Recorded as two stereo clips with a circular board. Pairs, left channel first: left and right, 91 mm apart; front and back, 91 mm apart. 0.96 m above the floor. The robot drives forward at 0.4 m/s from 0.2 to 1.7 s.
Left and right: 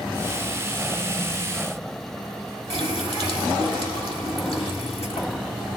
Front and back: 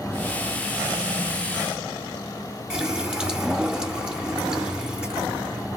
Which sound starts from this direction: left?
A running tap, at 2.7 s.